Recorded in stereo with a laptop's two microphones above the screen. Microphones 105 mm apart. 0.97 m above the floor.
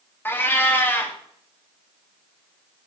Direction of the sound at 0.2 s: 20° left (ahead or behind).